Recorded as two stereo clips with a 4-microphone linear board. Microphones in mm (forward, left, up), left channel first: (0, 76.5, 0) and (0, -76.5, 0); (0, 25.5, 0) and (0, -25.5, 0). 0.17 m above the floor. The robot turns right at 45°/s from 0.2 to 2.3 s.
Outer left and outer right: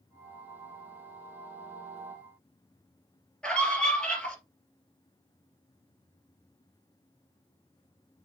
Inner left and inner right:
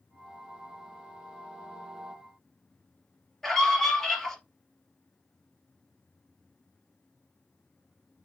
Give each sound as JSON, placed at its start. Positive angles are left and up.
{"t": 3.4, "sound": "a scream", "side_deg": 5, "distance_m": 3.0}